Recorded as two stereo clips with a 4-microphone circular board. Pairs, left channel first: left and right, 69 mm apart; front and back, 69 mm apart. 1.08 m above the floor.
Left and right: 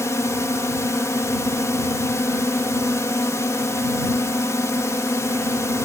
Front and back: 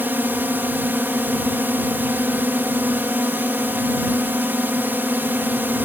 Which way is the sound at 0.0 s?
125° left.